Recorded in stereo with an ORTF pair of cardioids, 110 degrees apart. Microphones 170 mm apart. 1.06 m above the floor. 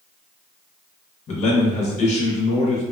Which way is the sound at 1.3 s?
40° left.